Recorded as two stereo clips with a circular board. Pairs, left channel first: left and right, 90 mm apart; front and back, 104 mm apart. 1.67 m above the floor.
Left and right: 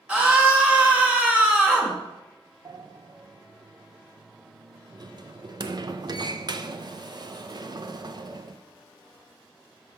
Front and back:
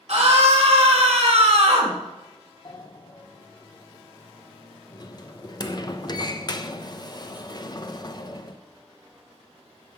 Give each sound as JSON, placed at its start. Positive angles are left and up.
{"t": 0.1, "sound": "a scream", "azimuth_deg": -165, "distance_m": 2.0}
{"t": 2.6, "sound": "a sliding door", "azimuth_deg": -50, "distance_m": 0.5}